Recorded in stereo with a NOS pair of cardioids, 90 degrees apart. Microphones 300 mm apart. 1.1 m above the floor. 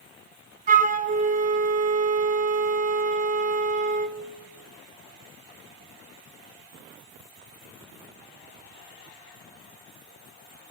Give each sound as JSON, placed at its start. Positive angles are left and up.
{"t": 0.7, "sound": "a flute", "azimuth_deg": -30, "distance_m": 0.6}